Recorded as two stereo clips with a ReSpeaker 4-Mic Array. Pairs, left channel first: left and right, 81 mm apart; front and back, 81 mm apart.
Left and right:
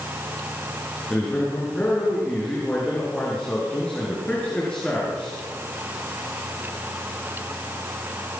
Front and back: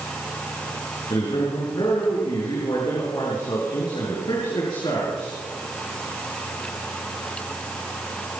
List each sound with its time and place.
1.1 s a man speaking: 15° left, 7 m